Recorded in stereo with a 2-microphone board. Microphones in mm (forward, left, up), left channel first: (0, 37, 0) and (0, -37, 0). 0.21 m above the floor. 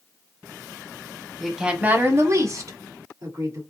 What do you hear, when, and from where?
1.4 s a woman speaking: 5° left (ahead or behind), 1.0 m; by 3.6 s 50° right (ahead or behind), 3 m